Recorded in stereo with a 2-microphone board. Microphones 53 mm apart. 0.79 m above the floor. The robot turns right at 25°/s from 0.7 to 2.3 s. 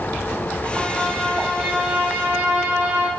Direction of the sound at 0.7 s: 170° left.